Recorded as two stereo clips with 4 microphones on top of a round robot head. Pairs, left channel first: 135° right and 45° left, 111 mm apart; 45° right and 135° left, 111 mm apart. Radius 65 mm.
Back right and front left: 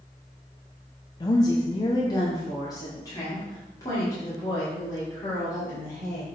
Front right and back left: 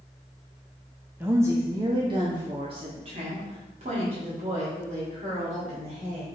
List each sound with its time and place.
1.2 s a woman speaking: 160° right, 0.8 m; by 6.4 s 160° left, 3.5 m